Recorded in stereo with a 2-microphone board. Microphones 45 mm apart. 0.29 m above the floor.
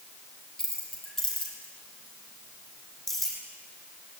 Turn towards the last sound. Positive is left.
turn(degrees=5)  # may be behind; listen again after turning